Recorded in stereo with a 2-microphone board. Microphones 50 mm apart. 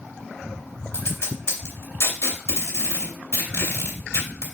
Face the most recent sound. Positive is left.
turn(degrees=50)  # may be behind; listen again after turning